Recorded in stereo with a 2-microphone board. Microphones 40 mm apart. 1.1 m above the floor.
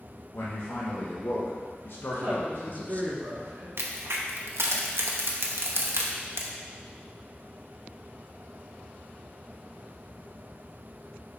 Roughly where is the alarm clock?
No alarm clock in this recording.